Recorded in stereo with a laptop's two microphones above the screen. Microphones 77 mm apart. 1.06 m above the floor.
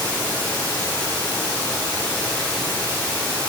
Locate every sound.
0.0 s running water: 25° left (ahead or behind), 4 m